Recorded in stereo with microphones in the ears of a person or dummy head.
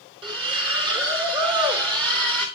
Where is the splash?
30° right (ahead or behind), 3.5 m.